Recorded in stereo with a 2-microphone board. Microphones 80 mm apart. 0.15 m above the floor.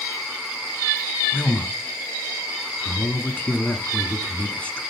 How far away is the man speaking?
About 1.0 m.